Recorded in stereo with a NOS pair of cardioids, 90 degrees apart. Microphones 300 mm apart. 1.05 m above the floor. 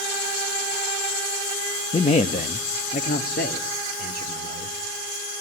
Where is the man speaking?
20° left, 0.9 m; by 4.8 s 30° left, 3.5 m.